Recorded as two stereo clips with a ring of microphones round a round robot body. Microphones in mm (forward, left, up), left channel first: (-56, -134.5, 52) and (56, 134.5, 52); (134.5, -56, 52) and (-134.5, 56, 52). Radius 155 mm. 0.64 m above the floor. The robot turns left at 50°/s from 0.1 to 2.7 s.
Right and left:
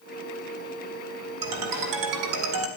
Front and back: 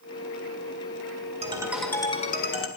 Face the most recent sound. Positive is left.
turn(degrees=25)